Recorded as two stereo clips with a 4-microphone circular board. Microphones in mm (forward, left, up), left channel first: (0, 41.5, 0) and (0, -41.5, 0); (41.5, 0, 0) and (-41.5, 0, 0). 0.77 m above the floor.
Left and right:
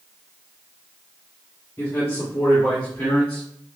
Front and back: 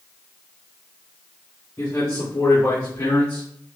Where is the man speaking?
40° left, 2.0 m; by 3.5 s 20° left, 1.4 m.